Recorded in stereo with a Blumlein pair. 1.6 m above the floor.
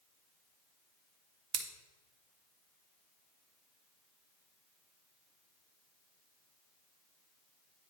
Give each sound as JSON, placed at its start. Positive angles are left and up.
{"t": 1.5, "sound": "scissors", "azimuth_deg": -30, "distance_m": 0.9}